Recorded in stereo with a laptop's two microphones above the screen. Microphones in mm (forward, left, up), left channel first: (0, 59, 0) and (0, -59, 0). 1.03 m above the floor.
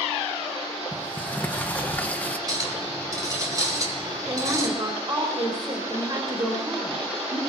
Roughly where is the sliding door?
Centre.